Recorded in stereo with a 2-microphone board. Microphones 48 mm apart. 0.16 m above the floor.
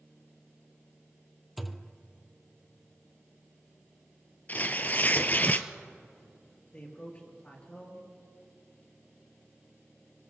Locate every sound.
1.6 s a thud: centre (ahead or behind), 0.7 m
4.5 s tearing paper: 35° left (ahead or behind), 0.7 m
6.7 s a man speaking: 30° left (ahead or behind), 3.5 m